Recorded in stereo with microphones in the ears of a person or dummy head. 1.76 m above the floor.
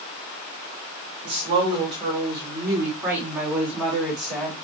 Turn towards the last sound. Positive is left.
turn(degrees=5)  # may be behind; listen again after turning